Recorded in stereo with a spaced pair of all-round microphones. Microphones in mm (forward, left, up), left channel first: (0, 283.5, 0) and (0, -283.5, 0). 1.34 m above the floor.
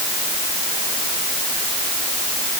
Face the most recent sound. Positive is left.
No sound to turn to.